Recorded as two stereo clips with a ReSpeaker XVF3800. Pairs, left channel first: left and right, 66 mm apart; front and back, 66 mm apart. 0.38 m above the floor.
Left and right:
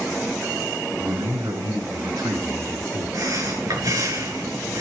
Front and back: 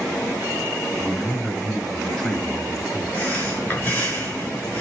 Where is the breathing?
65° right, 6 m.